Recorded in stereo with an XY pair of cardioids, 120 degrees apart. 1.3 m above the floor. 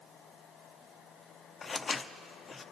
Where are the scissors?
25° left, 0.5 m.